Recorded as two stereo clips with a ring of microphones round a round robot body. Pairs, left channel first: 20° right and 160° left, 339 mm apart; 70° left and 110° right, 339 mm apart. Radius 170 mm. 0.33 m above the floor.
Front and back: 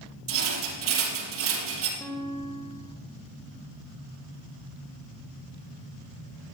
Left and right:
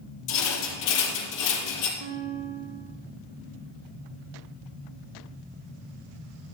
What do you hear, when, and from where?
0.3 s a rattle: 105° left, 4.5 m
2.0 s a guitar: 105° right, 2 m